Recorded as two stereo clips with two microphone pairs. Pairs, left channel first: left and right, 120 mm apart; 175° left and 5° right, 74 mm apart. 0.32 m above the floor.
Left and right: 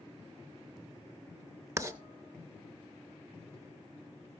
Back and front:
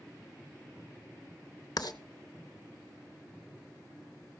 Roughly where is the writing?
Behind right.